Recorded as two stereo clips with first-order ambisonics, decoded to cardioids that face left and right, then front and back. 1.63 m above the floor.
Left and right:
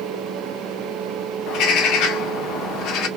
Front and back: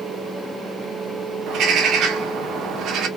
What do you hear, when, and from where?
1.5 s a bird: 130° left, 0.9 m